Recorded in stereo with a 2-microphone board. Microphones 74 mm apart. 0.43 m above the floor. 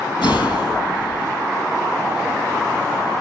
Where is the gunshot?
85° left, 4 m.